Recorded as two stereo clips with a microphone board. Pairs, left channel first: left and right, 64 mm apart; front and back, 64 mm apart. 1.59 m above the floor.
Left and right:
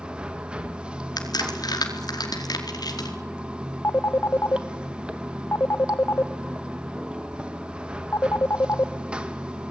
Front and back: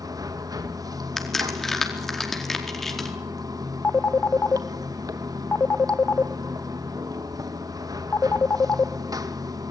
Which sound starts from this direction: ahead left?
A phone ringing, at 3.8 s.